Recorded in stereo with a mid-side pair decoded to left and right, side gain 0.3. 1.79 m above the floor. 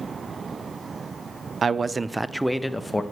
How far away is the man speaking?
About 0.5 m.